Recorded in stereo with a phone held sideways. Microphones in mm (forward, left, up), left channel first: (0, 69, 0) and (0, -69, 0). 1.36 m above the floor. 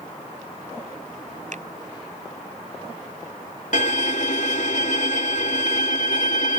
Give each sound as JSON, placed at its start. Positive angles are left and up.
{"t": 1.5, "sound": "a finger snap", "side_deg": -60}
{"t": 3.7, "sound": "a violin", "side_deg": 60}